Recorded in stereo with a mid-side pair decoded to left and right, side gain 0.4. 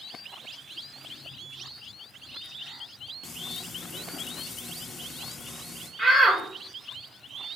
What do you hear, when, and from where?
3.2 s frying: 45° left, 2 m
6.0 s a shout: 25° right, 3.5 m